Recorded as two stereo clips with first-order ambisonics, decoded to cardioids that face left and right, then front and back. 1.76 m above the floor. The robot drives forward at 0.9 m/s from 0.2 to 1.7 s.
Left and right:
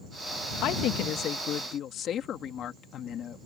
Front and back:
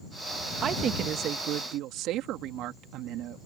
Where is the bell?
I don't hear a bell.